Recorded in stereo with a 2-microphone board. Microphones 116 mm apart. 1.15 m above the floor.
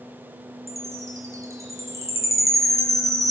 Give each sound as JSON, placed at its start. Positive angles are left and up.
{"t": 0.7, "sound": "a chime", "side_deg": -25, "distance_m": 4.5}